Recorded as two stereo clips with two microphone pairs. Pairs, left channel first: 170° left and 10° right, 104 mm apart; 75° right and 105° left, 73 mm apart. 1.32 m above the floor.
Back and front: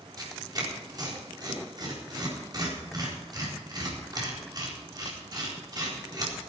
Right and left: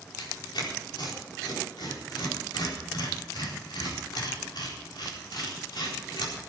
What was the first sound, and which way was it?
Tearing paper, 60° right.